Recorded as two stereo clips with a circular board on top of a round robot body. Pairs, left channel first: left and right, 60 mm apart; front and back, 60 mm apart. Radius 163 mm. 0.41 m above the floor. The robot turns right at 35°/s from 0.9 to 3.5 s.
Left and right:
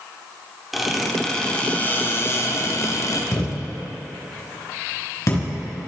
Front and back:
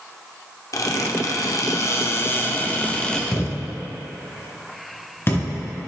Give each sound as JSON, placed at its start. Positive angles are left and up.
{"t": 0.7, "sound": "a squeak", "azimuth_deg": 0, "distance_m": 1.1}
{"t": 3.3, "sound": "a thud", "azimuth_deg": 50, "distance_m": 3.0}